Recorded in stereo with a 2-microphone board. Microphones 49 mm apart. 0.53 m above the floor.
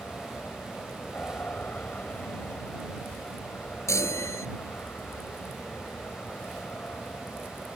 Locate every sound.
0.0 s an aircraft: 35° left (ahead or behind)
3.9 s a chime: 85° left